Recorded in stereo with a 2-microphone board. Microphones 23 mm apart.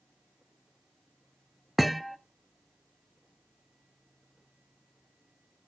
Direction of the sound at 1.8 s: Centre (ahead or behind).